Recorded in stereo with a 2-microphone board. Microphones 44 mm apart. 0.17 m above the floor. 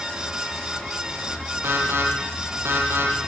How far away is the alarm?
About 8.5 m.